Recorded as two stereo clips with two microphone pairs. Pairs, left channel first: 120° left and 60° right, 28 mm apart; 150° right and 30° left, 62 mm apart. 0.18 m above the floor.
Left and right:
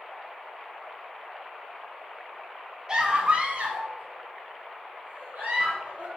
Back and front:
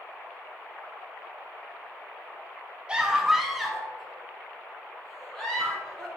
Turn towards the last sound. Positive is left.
turn(degrees=-70)